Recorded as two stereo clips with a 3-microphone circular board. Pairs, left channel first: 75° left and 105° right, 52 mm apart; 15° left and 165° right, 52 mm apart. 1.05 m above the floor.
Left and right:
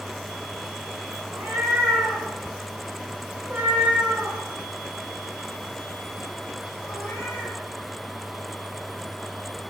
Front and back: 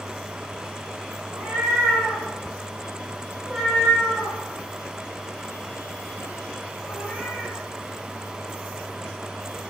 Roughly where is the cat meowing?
Right.